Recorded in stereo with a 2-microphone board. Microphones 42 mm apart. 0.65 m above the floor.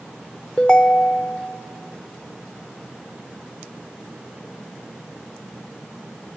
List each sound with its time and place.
0.6 s a ringtone: 25° left (ahead or behind), 0.7 m